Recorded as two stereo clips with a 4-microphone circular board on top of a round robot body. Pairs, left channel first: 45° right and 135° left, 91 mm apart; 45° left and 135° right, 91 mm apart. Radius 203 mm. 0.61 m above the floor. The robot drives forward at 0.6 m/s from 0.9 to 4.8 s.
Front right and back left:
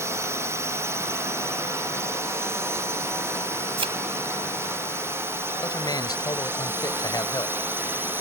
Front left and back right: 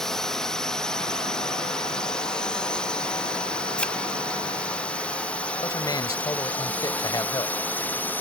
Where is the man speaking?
Straight ahead.